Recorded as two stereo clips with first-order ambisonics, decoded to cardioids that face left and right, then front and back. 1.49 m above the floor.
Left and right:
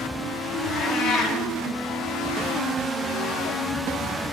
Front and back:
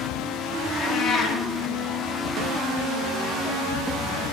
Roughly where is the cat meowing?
Ahead left.